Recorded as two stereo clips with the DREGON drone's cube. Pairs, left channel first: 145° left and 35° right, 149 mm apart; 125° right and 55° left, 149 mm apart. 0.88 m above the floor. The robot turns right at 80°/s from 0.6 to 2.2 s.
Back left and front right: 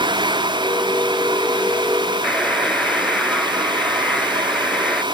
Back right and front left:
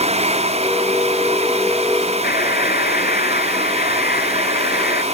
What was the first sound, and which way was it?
A buzzer, 130° right.